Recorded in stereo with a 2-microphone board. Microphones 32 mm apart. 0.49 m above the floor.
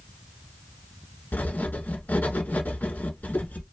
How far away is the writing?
About 0.8 m.